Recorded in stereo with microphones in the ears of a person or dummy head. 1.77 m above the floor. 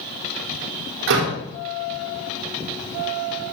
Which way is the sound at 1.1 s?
65° right (ahead or behind).